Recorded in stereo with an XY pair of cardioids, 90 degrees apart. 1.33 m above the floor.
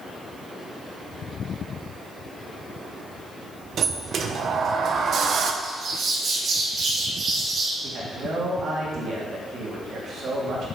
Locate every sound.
3.8 s a sliding door: 65° right, 1.0 m
5.6 s a bird: 60° right, 2.5 m
7.8 s a man speaking: 60° right, 3 m